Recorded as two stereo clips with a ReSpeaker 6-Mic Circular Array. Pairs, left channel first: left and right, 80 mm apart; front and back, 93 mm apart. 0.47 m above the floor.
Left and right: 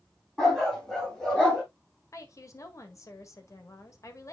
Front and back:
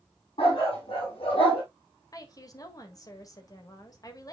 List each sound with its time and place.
0.4 s a dog barking: 5° left, 7 m
2.1 s a woman speaking: 45° left, 1.7 m